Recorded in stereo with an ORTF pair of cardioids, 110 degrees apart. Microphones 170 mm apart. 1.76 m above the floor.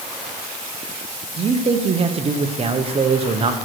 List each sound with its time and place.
1.4 s a man speaking: 35° right, 1.3 m